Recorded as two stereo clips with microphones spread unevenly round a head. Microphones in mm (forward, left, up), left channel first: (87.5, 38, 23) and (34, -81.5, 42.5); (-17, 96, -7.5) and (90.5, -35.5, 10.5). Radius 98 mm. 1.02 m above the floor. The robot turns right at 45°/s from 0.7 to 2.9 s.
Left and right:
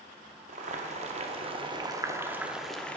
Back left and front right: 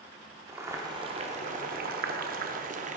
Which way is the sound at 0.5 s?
120° right.